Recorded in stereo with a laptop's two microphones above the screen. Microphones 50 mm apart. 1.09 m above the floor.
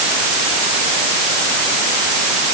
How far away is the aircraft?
No aircraft in this recording.